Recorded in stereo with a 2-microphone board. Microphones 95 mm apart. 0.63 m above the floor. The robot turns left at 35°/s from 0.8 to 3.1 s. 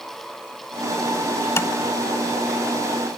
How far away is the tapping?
About 0.6 m.